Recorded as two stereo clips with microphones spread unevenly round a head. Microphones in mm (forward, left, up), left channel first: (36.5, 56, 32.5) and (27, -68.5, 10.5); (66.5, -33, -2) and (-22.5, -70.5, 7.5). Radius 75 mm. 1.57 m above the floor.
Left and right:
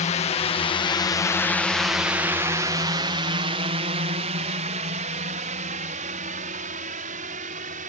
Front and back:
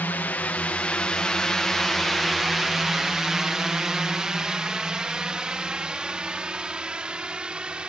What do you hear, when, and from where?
0.0 s a drone: 90° left; by 7.9 s 75° right